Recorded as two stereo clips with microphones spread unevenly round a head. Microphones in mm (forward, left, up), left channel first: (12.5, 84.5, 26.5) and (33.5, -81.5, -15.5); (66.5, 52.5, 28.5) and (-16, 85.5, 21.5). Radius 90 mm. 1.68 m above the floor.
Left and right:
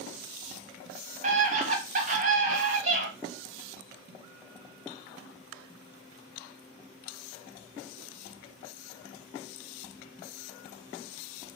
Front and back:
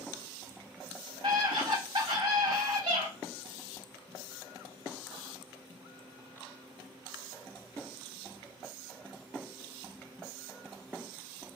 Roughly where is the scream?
Behind right.